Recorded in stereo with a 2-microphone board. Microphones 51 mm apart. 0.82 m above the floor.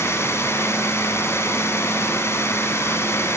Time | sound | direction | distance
0.0 | running water | 65° left (ahead or behind) | 6 m